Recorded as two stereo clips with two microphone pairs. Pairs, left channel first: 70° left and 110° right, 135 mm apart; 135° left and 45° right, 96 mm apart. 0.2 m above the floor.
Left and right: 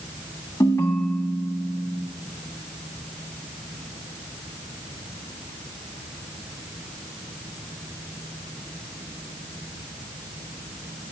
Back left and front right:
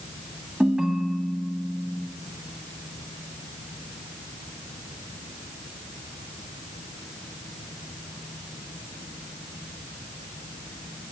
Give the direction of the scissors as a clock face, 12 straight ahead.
No scissors in this recording.